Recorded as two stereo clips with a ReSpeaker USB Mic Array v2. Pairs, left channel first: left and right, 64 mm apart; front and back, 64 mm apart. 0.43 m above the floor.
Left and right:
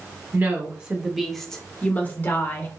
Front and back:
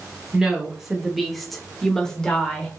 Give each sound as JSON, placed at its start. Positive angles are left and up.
{"t": 0.3, "sound": "a woman speaking", "azimuth_deg": -110, "distance_m": 0.9}